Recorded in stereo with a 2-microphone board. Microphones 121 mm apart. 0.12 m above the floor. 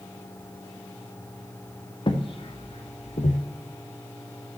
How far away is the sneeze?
I don't hear a sneeze.